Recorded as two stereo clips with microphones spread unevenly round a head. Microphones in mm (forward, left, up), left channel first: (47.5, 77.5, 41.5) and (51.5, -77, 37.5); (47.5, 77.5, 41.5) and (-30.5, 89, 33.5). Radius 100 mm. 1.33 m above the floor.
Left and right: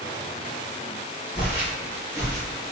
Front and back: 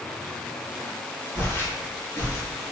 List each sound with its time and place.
1.4 s footsteps: 5° right, 1.8 m; by 2.4 s 20° right, 2.5 m